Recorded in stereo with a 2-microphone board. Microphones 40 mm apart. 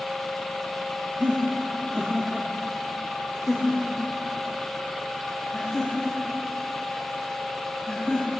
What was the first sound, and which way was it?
Laughter, 40° right (ahead or behind).